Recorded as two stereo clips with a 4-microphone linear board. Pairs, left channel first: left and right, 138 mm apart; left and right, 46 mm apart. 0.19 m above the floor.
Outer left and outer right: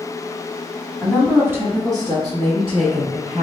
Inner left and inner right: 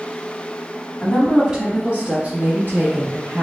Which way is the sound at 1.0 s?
5° right (ahead or behind).